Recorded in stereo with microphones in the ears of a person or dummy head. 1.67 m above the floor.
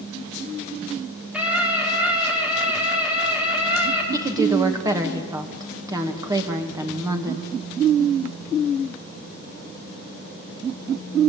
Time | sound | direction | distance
1.3 | a scream | 5° right (ahead or behind) | 5 m
4.1 | a woman speaking | 20° right (ahead or behind) | 2.5 m